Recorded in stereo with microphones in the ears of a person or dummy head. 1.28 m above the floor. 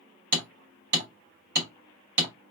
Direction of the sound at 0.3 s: 60° right (ahead or behind).